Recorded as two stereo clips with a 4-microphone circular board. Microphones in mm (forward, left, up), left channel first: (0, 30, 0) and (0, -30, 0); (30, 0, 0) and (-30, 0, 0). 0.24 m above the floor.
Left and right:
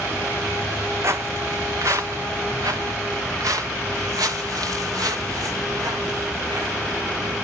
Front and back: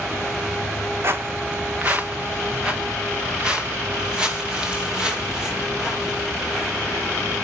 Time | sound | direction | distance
1.0 | footsteps | 135° right | 0.9 m